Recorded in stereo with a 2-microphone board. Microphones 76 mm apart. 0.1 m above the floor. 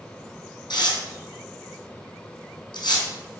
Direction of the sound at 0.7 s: 70° left (ahead or behind).